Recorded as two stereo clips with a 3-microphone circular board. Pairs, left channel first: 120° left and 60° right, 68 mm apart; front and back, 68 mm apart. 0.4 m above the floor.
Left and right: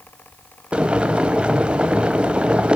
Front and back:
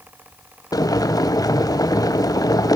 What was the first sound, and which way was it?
Boiling, 15° left.